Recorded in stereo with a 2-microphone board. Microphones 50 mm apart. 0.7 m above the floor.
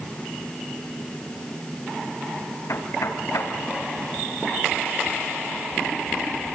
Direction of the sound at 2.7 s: 85° left.